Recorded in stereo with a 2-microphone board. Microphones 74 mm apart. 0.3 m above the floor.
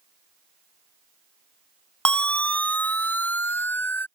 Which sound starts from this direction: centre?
A siren, at 2.0 s.